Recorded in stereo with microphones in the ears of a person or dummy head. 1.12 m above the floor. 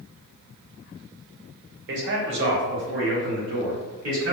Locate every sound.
1.9 s a man speaking: 60° right (ahead or behind), 0.8 m; by 4.3 s 75° right (ahead or behind), 2.5 m